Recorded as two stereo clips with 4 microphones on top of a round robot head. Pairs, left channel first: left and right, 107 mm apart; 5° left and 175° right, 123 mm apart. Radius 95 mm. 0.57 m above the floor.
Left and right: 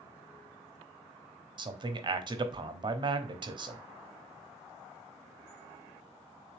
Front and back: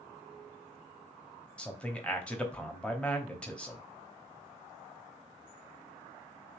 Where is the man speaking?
75° right, 0.8 m.